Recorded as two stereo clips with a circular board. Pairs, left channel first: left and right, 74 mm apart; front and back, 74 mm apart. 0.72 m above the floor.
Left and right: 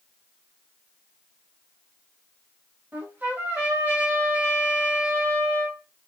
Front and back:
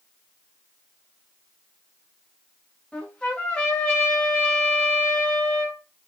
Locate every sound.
2.9 s a trumpet: 70° right, 0.8 m